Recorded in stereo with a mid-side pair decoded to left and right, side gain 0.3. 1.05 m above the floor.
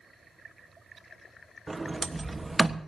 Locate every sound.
1.7 s a sliding door: 30° right, 1.4 m